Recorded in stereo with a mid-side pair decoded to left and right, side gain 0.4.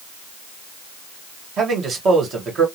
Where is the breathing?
No breathing in this recording.